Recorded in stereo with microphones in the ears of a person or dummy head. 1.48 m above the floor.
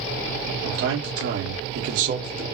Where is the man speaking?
70° right (ahead or behind), 2.0 m; by 2.5 s 35° right (ahead or behind), 1.2 m.